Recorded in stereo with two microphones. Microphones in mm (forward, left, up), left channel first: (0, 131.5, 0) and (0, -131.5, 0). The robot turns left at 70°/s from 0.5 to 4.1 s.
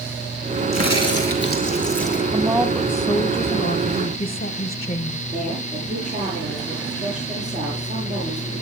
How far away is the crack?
About 5 m.